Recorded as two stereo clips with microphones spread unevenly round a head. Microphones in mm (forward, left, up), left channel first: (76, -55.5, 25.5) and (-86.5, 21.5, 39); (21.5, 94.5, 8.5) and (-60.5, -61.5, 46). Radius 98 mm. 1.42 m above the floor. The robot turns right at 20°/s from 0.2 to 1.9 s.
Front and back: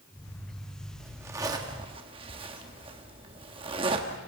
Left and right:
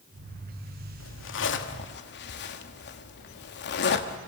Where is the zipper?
75° left, 1.3 m; by 4.2 s 95° left, 1.3 m.